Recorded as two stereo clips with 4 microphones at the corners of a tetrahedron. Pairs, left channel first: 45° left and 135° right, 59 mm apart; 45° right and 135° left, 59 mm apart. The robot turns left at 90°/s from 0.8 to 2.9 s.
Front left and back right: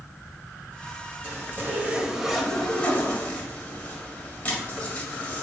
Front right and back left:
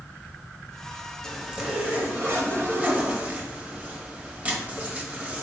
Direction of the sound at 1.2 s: 125° right.